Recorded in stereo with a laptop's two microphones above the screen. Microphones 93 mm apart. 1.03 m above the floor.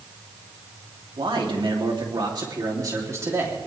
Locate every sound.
1.2 s a man speaking: 70° right (ahead or behind), 3 m; by 3.6 s 25° right (ahead or behind), 3 m